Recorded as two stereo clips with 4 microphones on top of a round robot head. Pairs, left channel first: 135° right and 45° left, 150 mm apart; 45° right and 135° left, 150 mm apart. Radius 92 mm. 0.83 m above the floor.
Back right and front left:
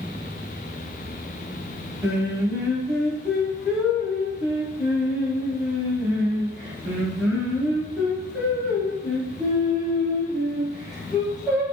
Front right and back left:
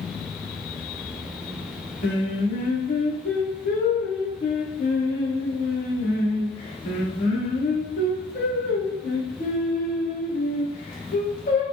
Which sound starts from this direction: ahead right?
Singing, at 2.0 s.